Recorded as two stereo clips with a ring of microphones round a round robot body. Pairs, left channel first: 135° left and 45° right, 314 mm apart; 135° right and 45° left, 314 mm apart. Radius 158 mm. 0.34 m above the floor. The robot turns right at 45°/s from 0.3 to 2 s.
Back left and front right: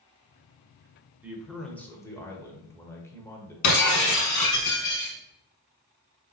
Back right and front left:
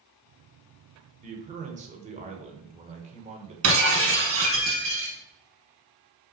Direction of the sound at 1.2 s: 30° left.